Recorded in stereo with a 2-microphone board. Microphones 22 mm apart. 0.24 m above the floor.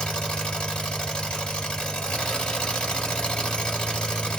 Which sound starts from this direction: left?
An engine running, at 0.0 s.